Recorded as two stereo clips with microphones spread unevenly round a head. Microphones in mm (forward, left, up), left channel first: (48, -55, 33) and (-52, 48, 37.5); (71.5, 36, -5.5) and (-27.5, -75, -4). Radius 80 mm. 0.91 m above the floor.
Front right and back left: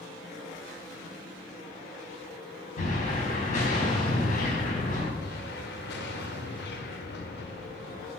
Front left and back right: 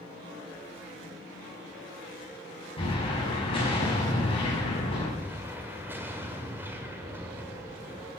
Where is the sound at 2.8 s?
5° right, 5.5 m.